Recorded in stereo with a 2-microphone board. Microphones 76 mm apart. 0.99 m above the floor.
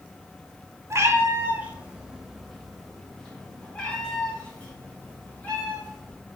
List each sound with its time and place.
0.9 s a cat meowing: 35° right (ahead or behind), 0.8 m; by 6.2 s 20° left (ahead or behind), 3 m